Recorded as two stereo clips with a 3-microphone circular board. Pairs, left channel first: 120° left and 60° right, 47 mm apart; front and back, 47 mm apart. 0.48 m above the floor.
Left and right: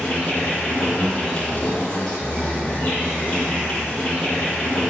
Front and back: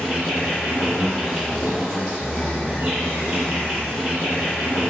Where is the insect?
95° left, 1.8 m.